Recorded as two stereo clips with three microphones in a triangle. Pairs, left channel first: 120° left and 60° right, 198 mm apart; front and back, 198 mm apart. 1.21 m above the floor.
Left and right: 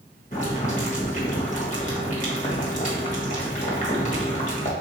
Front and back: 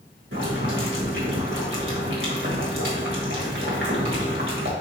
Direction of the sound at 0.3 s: 170° left.